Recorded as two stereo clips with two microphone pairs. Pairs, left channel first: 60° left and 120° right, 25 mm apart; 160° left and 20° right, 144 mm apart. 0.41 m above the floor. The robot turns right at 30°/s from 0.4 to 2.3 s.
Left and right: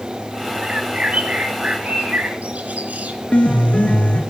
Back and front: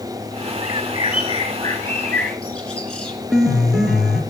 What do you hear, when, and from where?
0.6 s a bird: 165° right, 3 m; by 3.2 s 115° right, 3 m
3.3 s a piano: 65° left, 2.5 m